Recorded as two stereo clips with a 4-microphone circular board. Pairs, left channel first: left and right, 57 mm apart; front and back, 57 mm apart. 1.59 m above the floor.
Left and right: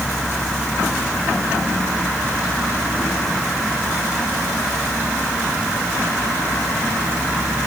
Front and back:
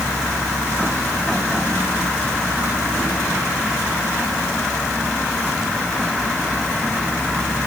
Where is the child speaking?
No child speaking in this recording.